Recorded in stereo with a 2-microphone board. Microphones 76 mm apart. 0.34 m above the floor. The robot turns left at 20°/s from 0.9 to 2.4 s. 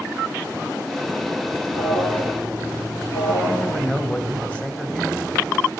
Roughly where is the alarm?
Left.